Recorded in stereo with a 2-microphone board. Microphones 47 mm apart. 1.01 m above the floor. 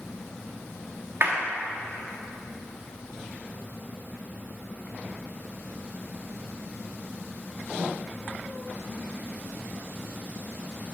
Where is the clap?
55° right (ahead or behind), 1.9 m.